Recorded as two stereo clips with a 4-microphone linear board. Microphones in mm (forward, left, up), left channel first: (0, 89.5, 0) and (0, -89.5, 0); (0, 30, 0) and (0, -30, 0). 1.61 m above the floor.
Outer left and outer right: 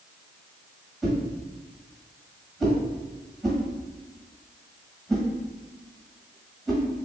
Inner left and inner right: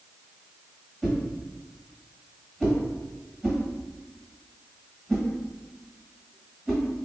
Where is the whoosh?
Centre (ahead or behind), 1.6 m.